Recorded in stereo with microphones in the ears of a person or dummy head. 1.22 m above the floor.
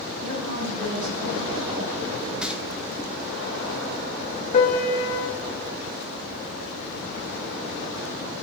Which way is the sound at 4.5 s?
40° left (ahead or behind).